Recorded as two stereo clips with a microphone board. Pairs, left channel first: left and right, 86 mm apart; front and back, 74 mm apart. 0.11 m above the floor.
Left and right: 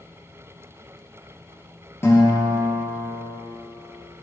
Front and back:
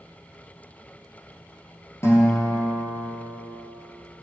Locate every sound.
2.0 s a guitar: 40° left, 2.5 m